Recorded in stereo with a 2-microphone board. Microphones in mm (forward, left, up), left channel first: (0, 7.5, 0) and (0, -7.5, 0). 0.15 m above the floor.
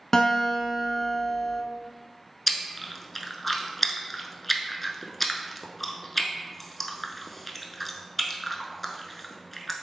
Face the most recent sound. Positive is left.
turn(degrees=5)  # may be behind; listen again after turning